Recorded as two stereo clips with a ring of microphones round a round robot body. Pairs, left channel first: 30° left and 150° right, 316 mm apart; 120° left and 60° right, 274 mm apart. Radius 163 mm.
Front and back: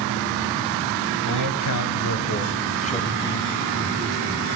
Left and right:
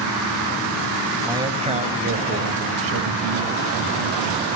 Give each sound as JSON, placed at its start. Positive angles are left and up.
{"t": 1.2, "sound": "a man speaking", "azimuth_deg": 20, "distance_m": 2.0}